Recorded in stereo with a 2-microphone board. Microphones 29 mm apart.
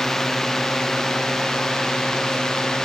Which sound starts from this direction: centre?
A drone, at 0.0 s.